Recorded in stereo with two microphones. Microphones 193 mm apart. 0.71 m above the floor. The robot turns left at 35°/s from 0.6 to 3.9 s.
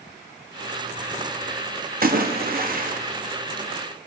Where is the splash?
80° right, 0.8 m; by 3.0 s 115° right, 0.8 m.